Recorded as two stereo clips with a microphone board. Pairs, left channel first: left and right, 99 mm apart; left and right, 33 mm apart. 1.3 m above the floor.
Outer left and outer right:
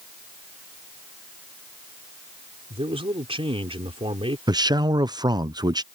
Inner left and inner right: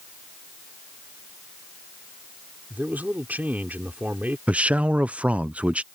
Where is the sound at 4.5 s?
40° right (ahead or behind).